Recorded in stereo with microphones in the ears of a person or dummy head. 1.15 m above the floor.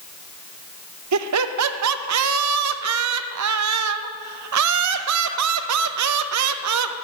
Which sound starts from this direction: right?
Laughter, at 1.1 s.